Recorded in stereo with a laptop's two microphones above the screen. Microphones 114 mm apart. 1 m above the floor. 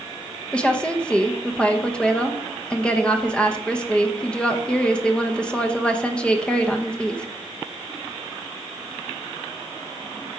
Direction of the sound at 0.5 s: 10° left (ahead or behind).